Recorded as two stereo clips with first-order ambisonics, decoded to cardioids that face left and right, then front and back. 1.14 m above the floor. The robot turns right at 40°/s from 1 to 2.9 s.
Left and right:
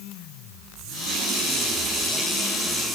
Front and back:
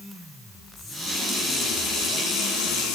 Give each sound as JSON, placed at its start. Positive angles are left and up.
{"t": 0.8, "sound": "a running tap", "azimuth_deg": -65, "distance_m": 8.0}